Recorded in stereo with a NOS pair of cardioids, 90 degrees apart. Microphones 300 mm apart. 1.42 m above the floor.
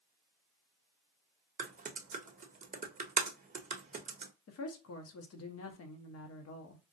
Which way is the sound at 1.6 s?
25° right.